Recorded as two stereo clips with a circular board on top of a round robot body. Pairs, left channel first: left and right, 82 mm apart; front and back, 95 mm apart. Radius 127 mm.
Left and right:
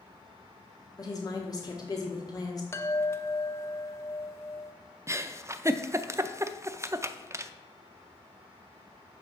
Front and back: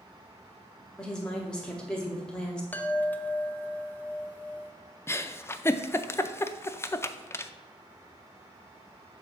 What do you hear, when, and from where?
1.0 s a woman speaking: 80° left, 1.0 m
2.7 s a chime: 60° left, 0.7 m
5.1 s a giggle: 50° right, 0.5 m